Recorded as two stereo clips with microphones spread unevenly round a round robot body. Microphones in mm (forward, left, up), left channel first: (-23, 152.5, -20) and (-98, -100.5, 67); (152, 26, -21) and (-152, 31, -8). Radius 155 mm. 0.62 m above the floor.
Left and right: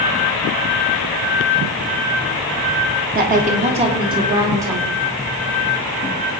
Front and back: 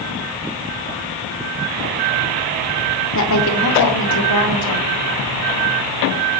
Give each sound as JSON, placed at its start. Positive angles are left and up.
{"t": 3.1, "sound": "a woman speaking", "azimuth_deg": -40, "distance_m": 1.6}